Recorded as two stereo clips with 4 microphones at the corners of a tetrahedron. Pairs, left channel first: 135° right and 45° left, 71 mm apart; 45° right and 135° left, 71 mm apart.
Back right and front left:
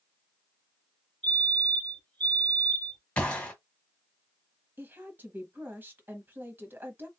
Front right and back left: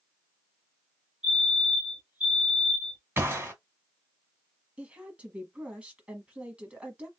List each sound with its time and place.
1.2 s a fire alarm: 165° left, 2.0 m
3.2 s a gunshot: 160° left, 1.5 m
4.8 s a woman speaking: 75° left, 1.3 m